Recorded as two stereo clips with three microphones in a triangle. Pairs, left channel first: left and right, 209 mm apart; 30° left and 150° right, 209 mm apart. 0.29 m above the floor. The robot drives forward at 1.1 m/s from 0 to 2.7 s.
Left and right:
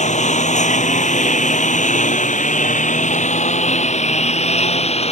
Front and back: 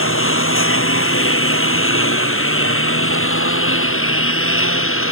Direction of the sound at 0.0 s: 35° left.